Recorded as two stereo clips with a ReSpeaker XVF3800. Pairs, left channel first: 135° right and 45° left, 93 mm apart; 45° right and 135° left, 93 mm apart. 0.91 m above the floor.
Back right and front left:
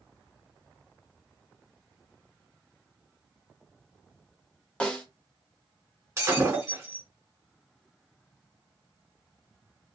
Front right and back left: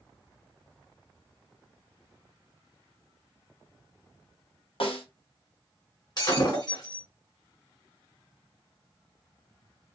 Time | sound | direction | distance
4.8 | a snare drum | 55° right | 0.8 m
6.2 | breaking glass | 10° right | 1.4 m